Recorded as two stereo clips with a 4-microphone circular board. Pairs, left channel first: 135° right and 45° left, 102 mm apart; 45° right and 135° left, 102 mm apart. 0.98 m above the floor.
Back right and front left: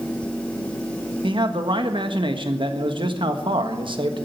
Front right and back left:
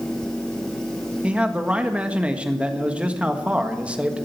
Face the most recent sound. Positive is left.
turn(degrees=60)